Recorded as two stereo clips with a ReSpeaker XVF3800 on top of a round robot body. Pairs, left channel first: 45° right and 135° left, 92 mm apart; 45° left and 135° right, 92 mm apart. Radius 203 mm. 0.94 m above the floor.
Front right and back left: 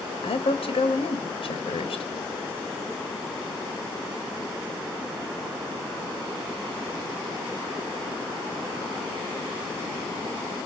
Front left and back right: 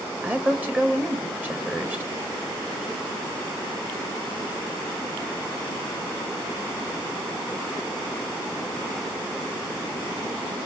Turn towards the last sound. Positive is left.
turn(degrees=-60)